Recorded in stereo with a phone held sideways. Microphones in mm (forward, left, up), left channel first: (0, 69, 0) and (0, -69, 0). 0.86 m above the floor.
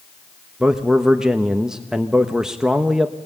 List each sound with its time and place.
0.6 s a man speaking: 5° right (ahead or behind), 1.1 m